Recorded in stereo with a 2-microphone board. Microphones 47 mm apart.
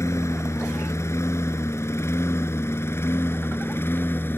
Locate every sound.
0.0 s a lawn mower: 75° left (ahead or behind); by 4.4 s 50° left (ahead or behind)